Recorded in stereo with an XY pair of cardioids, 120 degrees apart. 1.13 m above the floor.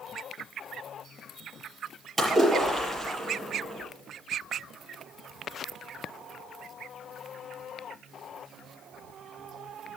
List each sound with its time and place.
2.2 s a splash: 20° right, 6.5 m